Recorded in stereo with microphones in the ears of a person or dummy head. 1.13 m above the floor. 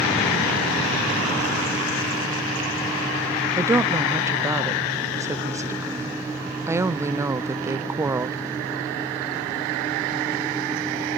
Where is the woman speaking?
15° right (ahead or behind), 0.6 m.